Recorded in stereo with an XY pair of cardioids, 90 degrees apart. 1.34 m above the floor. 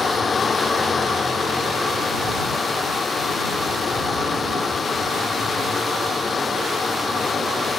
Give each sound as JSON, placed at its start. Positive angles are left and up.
{"t": 0.0, "sound": "a fan", "azimuth_deg": 40}